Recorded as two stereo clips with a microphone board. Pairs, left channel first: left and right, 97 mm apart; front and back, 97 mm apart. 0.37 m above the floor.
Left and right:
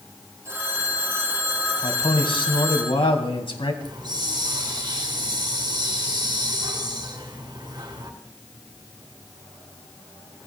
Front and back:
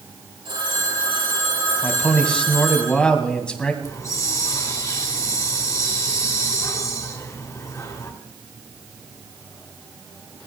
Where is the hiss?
50° right, 2 m.